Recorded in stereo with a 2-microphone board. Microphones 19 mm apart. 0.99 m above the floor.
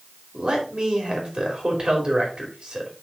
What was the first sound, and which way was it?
A man speaking, 50° right (ahead or behind).